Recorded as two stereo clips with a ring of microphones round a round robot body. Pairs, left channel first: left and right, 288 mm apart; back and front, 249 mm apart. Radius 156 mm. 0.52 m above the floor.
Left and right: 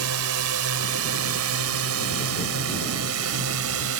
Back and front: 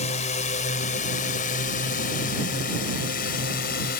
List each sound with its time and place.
0.0 s a drone: 115° right; by 4.0 s 125° right